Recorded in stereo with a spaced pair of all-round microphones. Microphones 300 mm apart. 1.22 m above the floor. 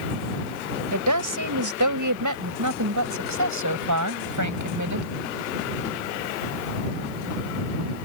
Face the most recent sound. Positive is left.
turn(degrees=-70)  # may be behind; listen again after turning